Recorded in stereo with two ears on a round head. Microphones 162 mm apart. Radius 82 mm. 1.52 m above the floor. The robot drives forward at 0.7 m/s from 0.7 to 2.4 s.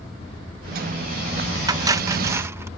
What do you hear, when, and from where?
1.7 s cutlery clinking: 20° right (ahead or behind); by 2.7 s 15° right (ahead or behind)